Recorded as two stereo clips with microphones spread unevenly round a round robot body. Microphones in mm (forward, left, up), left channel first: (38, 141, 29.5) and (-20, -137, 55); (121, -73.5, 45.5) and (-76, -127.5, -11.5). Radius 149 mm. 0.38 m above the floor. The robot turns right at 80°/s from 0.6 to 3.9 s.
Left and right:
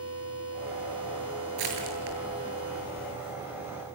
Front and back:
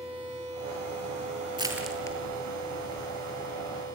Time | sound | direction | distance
1.6 | crushing | 100° right | 8 m